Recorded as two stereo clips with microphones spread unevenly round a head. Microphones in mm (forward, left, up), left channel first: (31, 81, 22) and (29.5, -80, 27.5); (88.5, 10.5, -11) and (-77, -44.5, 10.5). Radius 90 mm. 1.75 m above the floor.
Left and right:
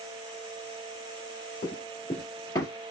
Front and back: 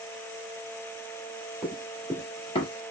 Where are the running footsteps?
120° left, 2 m; by 2.7 s 30° left, 1.9 m.